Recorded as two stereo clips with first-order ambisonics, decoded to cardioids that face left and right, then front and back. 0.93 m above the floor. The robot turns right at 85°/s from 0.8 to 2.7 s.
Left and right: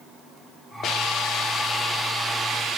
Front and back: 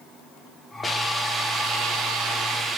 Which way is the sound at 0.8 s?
70° left.